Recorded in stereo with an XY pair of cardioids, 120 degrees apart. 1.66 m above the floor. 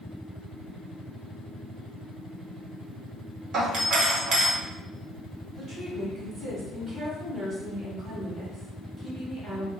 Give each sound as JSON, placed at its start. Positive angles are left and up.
{"t": 3.5, "sound": "a doorbell", "azimuth_deg": -55, "distance_m": 1.1}
{"t": 5.6, "sound": "a woman speaking", "azimuth_deg": -40, "distance_m": 2.0}